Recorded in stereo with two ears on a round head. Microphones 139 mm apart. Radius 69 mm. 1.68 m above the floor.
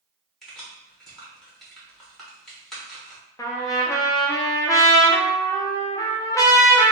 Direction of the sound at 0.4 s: Centre (ahead or behind).